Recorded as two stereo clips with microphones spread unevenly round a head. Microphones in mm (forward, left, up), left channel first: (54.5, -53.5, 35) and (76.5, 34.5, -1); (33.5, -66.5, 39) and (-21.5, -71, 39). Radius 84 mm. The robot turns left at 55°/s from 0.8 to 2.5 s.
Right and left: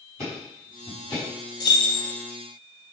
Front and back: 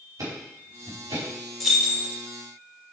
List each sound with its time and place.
0.2 s ticking: 160° right, 5 m; by 1.3 s 175° left, 5 m
1.6 s keys jangling: 85° right, 1.9 m; by 2.1 s 115° right, 1.9 m